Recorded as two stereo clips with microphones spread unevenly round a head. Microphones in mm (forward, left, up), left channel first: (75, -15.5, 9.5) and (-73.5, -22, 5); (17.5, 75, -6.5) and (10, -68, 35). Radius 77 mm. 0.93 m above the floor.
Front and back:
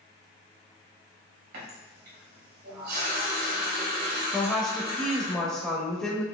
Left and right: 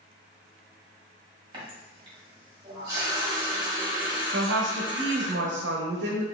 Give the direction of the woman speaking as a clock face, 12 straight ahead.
3 o'clock.